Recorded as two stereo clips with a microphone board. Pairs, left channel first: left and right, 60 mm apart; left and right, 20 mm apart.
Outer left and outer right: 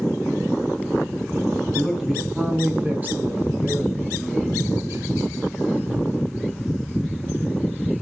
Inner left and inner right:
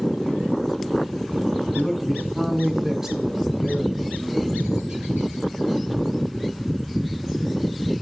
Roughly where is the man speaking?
Centre.